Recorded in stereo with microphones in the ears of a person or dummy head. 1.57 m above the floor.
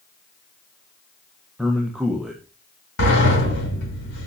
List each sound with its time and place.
1.6 s a man speaking: centre (ahead or behind), 1.6 m
3.0 s a sliding door: 70° left (ahead or behind), 5.5 m